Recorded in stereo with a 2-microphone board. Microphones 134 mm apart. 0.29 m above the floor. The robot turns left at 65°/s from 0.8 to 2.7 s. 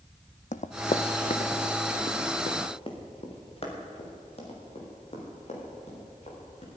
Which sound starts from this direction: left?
Running footsteps, at 0.5 s.